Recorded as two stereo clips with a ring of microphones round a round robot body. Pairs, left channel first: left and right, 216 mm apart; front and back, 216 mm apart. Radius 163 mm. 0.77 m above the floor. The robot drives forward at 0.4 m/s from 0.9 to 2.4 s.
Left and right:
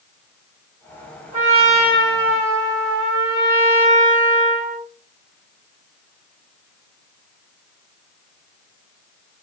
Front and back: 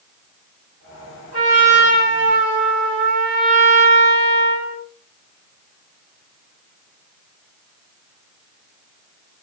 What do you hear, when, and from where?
1.3 s a trumpet: 135° right, 2 m; by 4.8 s 145° right, 2.5 m